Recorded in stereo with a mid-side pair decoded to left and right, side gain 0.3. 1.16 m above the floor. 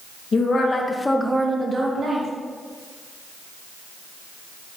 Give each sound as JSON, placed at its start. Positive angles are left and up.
{"t": 0.3, "sound": "a woman speaking", "azimuth_deg": 60, "distance_m": 1.2}